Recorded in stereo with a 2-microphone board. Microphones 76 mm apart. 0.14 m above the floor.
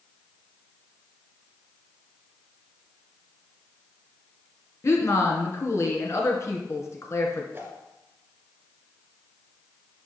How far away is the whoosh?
About 1.8 m.